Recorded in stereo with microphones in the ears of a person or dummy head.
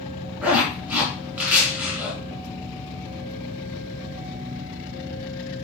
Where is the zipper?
15° right (ahead or behind), 2.5 m.